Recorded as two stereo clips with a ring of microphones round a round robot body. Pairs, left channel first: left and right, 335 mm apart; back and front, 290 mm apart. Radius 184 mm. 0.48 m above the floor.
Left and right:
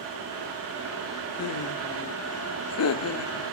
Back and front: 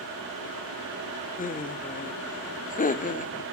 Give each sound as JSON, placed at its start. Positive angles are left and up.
{"t": 1.4, "sound": "laughter", "azimuth_deg": 125, "distance_m": 1.1}